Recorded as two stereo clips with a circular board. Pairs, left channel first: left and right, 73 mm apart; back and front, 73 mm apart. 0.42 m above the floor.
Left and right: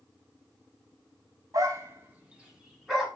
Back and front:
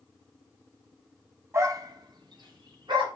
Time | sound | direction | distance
1.5 | a dog barking | 50° right | 1.0 m